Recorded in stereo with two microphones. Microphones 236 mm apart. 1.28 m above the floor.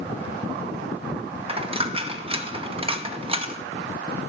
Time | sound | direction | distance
1.5 | a dropped coin | 25° right (ahead or behind) | 0.6 m